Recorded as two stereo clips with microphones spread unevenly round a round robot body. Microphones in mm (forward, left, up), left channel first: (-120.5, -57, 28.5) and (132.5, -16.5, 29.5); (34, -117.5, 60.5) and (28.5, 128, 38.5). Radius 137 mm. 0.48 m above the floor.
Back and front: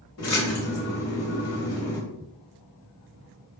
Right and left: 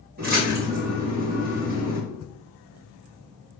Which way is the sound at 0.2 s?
145° left.